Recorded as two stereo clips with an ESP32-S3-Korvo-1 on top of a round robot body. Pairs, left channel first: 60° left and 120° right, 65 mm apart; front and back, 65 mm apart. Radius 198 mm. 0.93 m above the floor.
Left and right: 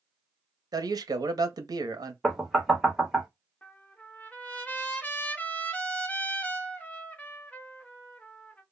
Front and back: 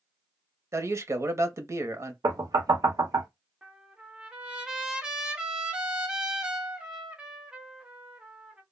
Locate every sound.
0.7 s a man speaking: 135° right, 0.8 m
2.2 s knocking: 155° left, 1.0 m
3.6 s a trumpet: 115° left, 1.0 m